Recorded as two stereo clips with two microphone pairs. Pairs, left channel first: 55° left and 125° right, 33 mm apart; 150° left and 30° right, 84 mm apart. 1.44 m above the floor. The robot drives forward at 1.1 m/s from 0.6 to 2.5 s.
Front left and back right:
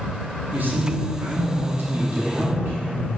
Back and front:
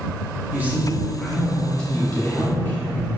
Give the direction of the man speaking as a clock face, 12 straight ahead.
3 o'clock.